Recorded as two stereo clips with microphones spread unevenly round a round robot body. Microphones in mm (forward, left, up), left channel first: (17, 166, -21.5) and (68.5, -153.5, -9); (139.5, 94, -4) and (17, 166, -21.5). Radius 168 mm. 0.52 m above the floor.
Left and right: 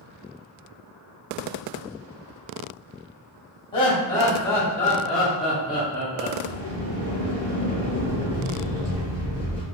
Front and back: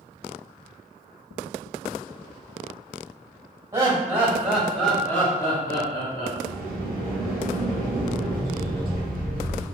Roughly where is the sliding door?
Ahead right.